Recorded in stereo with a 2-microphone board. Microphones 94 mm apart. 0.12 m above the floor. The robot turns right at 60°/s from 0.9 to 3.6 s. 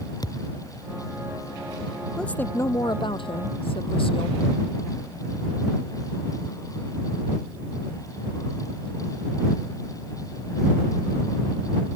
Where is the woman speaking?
5° left; by 4.4 s 95° left.